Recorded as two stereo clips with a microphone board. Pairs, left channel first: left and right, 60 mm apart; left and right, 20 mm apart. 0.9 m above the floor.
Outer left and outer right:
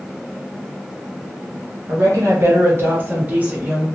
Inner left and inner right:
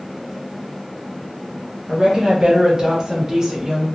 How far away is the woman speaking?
About 0.9 m.